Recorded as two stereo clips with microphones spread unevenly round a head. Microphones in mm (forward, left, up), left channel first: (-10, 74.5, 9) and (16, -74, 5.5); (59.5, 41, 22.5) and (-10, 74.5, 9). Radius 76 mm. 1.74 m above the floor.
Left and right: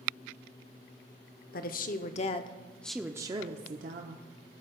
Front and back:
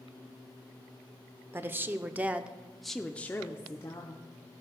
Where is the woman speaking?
90° left, 0.9 m; by 4.2 s 65° right, 0.8 m.